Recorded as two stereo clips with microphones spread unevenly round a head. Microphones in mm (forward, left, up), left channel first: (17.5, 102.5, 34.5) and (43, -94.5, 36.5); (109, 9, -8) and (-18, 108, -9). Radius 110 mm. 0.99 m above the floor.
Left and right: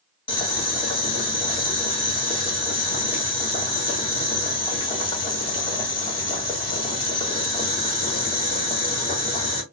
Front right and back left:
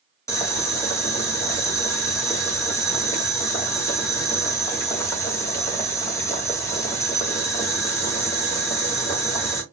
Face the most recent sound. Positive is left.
turn(degrees=35)